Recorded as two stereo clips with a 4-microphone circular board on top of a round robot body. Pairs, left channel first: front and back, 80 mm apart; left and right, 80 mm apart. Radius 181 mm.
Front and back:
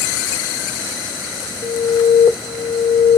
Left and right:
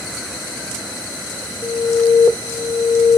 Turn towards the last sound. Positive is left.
turn(degrees=60)